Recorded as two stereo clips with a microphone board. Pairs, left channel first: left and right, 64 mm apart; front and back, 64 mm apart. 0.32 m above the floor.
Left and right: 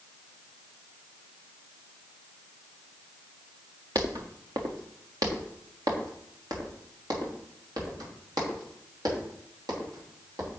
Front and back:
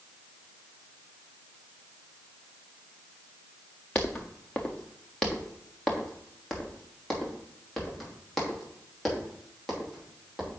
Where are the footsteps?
70° right, 1.5 m; by 10.5 s 90° right, 6 m.